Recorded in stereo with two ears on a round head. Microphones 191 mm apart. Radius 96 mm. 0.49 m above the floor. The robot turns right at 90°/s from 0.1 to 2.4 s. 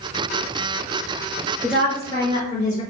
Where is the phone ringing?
No phone ringing in this recording.